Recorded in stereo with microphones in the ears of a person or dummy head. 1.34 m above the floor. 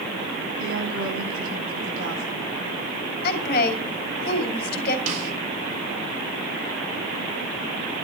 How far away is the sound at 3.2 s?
About 4 m.